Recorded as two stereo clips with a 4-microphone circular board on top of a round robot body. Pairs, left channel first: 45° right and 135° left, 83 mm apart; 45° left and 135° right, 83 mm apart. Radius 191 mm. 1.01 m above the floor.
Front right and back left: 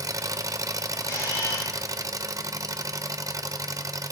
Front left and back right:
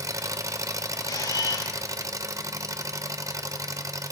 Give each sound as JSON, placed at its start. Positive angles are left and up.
{"t": 0.0, "sound": "an engine running", "azimuth_deg": 180, "distance_m": 1.0}
{"t": 1.0, "sound": "a camera shutter", "azimuth_deg": 5, "distance_m": 9.5}